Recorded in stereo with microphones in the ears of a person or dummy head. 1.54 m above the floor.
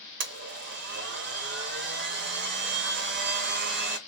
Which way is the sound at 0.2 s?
60° right (ahead or behind).